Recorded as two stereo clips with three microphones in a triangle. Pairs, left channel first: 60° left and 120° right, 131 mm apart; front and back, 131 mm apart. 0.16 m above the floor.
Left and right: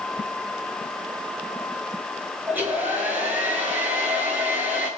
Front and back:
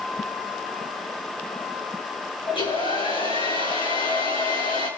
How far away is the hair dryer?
About 8 m.